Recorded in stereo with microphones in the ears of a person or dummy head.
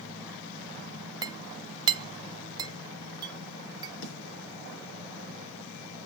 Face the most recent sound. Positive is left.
turn(degrees=80)